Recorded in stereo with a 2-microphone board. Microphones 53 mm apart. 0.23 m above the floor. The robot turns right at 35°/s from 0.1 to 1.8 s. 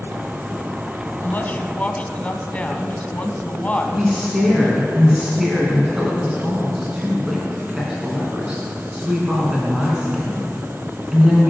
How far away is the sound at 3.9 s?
About 3 m.